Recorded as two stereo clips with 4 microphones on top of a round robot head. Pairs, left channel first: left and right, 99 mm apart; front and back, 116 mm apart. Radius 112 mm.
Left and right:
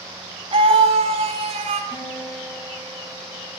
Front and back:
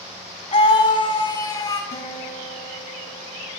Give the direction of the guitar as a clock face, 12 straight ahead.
11 o'clock.